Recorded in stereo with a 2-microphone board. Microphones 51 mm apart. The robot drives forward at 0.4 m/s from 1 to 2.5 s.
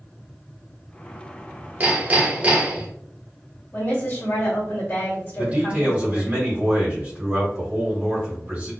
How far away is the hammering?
About 0.7 m.